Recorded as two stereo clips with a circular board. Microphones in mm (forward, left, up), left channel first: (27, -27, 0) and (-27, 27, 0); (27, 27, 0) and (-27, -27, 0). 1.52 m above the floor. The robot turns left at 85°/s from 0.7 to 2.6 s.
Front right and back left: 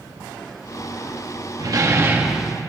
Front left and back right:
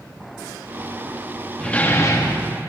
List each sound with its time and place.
1.6 s a door slam: 120° left, 1.3 m; by 2.5 s 45° left, 1.3 m